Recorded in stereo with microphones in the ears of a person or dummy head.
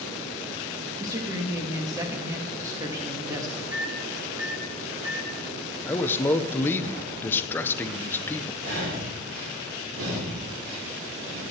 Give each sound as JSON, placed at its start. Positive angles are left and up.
{"t": 1.0, "sound": "a woman speaking", "side_deg": -15, "distance_m": 1.6}
{"t": 3.7, "sound": "a microwave", "side_deg": -20, "distance_m": 3.5}
{"t": 5.9, "sound": "a man speaking", "side_deg": 15, "distance_m": 0.7}
{"t": 8.6, "sound": "breathing", "side_deg": -85, "distance_m": 4.0}